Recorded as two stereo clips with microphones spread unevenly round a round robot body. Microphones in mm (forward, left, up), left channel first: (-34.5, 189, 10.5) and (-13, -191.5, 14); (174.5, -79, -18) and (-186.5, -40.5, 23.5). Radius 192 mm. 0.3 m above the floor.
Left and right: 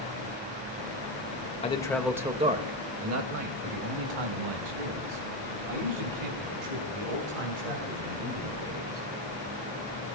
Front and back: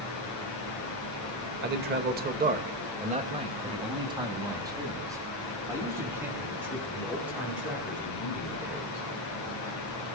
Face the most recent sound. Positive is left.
turn(degrees=-95)